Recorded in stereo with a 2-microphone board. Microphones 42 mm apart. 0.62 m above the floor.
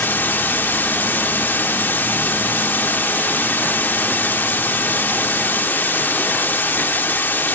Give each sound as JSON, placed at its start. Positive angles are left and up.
{"t": 0.0, "sound": "running water", "side_deg": 65, "distance_m": 1.1}